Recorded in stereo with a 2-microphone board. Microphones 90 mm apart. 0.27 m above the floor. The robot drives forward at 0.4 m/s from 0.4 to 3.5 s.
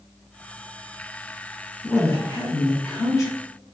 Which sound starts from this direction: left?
A woman speaking, at 1.8 s.